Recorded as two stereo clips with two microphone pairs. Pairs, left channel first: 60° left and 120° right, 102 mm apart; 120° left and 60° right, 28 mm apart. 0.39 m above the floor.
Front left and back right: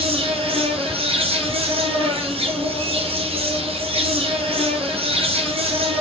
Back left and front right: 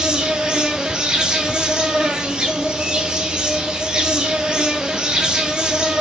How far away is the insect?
About 0.8 m.